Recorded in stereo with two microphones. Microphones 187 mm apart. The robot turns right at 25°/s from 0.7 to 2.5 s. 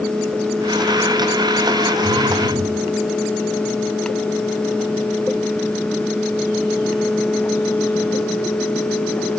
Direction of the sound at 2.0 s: 45° left (ahead or behind).